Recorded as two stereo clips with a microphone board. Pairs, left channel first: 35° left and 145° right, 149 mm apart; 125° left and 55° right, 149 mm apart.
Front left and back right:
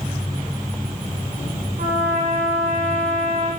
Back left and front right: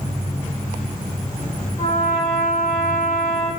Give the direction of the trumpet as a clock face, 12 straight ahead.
6 o'clock.